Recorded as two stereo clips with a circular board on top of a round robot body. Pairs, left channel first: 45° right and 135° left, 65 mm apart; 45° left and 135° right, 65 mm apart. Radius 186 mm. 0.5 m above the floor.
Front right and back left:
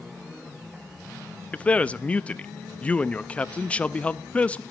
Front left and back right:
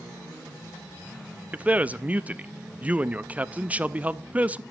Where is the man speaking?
95° right, 0.7 m.